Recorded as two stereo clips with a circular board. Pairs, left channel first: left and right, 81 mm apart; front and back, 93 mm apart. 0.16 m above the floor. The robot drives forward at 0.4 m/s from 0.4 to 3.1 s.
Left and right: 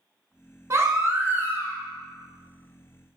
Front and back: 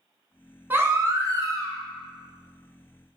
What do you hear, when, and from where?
0.7 s a baby crying: 120° right, 0.6 m; by 1.8 s 150° right, 0.8 m